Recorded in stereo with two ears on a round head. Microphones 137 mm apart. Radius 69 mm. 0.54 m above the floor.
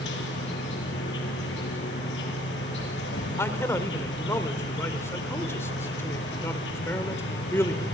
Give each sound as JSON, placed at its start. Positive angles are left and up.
{"t": 0.0, "sound": "an insect", "side_deg": 80, "distance_m": 6.5}
{"t": 3.4, "sound": "a man speaking", "side_deg": 15, "distance_m": 1.9}